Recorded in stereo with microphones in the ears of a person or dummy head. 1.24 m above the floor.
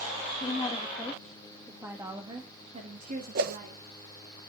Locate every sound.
0.4 s a woman speaking: 25° left (ahead or behind), 1.7 m; by 3.8 s 55° right (ahead or behind), 2.5 m
3.4 s a whoosh: 55° right (ahead or behind), 1.1 m